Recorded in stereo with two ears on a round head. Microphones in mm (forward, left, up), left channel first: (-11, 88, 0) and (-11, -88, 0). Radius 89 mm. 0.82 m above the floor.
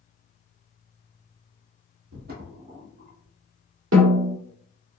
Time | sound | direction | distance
2.1 | footsteps | 50° right (ahead or behind) | 1.7 m
3.9 | a snare drum | 70° right (ahead or behind) | 1.3 m